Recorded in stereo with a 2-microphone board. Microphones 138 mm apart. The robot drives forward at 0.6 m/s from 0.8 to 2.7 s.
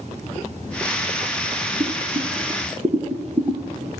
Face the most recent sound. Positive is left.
turn(degrees=-35)  # may be behind; listen again after turning